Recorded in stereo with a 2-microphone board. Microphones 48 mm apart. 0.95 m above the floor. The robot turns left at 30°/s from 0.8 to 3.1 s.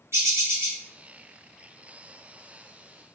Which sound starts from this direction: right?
A bird, at 0.1 s.